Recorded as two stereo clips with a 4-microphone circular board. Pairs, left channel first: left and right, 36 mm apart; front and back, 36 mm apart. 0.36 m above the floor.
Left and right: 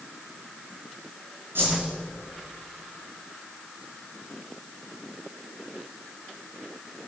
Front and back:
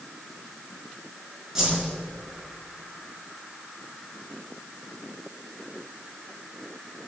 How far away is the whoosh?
About 4 m.